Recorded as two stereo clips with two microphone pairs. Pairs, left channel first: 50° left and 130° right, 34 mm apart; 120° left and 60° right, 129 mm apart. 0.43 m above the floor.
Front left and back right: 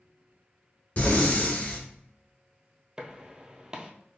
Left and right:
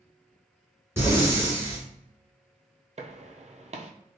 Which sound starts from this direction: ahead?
Breathing, at 1.0 s.